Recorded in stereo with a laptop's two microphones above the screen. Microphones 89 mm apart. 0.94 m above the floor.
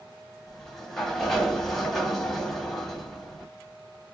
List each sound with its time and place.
0.5 s a sliding door: 5° left (ahead or behind), 1.0 m